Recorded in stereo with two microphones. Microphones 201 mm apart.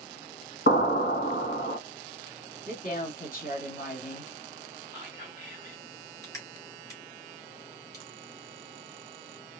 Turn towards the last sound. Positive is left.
turn(degrees=15)  # may be behind; listen again after turning